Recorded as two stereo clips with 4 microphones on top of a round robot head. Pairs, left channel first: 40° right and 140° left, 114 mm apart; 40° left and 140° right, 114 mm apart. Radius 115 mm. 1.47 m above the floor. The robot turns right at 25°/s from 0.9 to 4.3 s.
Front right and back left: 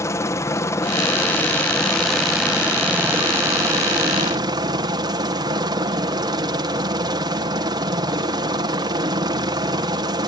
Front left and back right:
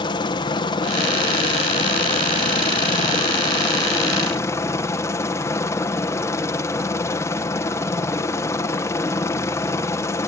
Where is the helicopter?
15° left; by 10.3 s 100° left.